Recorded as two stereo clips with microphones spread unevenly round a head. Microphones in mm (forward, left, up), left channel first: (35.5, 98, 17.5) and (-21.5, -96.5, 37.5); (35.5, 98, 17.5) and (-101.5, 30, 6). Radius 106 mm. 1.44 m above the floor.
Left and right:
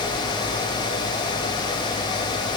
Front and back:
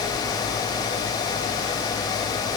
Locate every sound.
Only background noise.